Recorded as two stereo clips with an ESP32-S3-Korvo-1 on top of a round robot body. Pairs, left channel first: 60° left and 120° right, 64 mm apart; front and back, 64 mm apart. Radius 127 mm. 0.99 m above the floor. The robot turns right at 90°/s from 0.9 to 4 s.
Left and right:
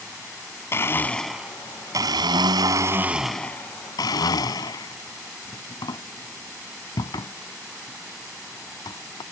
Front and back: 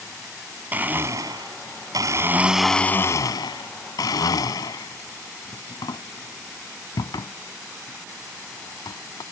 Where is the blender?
115° left; by 9.2 s 30° left.